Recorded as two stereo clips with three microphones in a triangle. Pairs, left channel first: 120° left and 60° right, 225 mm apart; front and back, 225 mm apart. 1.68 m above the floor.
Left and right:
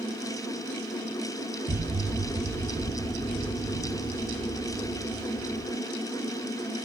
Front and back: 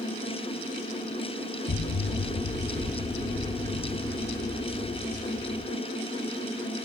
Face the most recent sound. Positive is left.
turn(degrees=15)